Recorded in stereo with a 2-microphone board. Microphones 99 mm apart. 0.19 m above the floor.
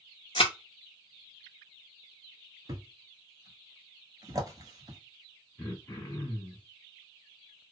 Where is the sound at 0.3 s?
75° left (ahead or behind), 0.8 m.